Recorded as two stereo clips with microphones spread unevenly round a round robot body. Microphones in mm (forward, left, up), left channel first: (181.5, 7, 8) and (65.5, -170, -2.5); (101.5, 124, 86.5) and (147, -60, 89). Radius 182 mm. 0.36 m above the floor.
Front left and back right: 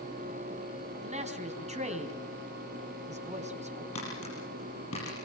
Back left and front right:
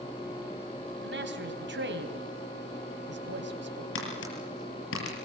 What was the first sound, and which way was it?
A man speaking, 70° right.